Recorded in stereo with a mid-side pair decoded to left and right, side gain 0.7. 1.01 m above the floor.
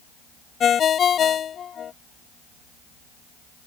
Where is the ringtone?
35° left.